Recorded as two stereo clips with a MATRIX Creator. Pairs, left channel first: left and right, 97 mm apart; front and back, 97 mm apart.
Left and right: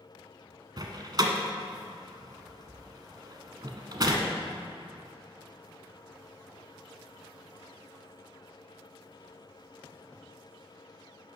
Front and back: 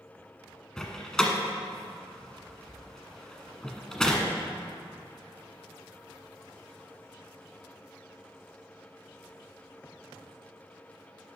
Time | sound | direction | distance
0.8 | a door slam | 80° right | 1.2 m